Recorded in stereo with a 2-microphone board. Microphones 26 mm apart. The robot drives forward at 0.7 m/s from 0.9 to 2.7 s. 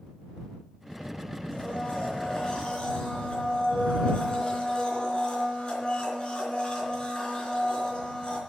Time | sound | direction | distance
1.5 | a blender | 30° left (ahead or behind) | 4.5 m